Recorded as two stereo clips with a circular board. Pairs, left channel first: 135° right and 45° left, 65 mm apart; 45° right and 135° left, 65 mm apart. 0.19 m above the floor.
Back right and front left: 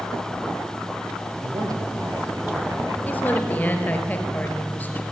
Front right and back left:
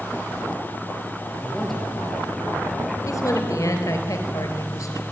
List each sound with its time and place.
1.4 s a man speaking: 45° left, 4.5 m
3.0 s a woman speaking: 75° right, 4 m